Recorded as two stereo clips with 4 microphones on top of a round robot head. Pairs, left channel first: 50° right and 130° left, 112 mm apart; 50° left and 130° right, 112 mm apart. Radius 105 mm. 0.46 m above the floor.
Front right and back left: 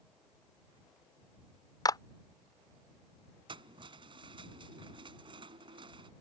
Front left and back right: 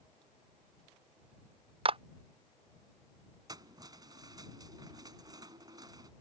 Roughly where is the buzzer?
No buzzer in this recording.